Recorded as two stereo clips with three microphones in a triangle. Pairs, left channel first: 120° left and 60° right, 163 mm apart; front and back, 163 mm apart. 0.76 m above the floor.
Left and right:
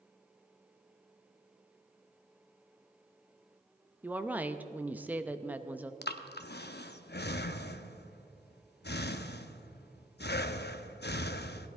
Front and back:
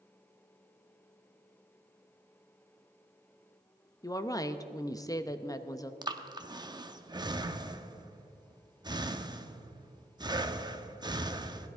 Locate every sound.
4.0 s a woman speaking: straight ahead, 0.6 m
6.0 s breathing: 115° left, 0.6 m